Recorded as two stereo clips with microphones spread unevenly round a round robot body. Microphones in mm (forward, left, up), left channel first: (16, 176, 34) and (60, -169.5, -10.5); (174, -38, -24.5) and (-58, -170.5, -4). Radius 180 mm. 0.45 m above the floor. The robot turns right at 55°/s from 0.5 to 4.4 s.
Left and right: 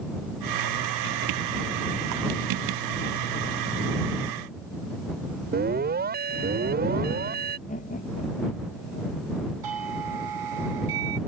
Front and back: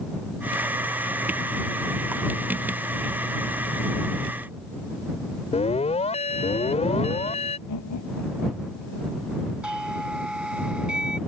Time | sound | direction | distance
5.5 | an alarm | 30° right | ?
7.7 | laughter | 30° left | ?
9.6 | a doorbell | 65° right | ?